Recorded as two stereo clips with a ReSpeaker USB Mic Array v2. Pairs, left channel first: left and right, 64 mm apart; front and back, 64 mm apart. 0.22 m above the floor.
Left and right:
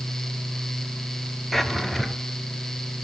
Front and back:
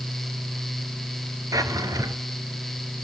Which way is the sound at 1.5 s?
Straight behind.